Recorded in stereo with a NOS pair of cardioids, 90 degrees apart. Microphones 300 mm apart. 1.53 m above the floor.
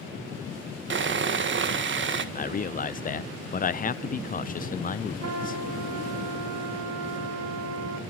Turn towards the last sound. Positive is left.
turn(degrees=-60)